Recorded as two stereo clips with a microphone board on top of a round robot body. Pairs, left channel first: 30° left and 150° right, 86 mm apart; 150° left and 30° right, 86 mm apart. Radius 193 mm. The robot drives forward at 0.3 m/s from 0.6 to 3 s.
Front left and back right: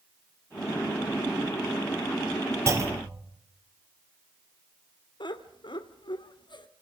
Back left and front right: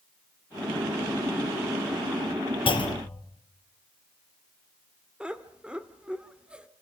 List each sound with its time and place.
2.7 s a clunk: 155° left, 3 m
5.2 s laughter: 50° left, 1.9 m